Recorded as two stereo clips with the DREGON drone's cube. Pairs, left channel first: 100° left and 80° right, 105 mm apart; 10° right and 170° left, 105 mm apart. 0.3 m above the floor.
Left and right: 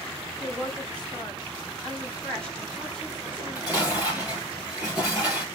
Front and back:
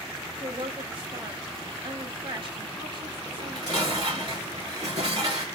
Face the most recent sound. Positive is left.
turn(degrees=-155)